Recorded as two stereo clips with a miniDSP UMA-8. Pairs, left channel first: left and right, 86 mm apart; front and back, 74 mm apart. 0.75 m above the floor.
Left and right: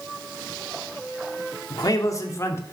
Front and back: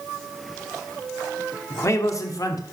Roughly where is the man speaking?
Ahead left.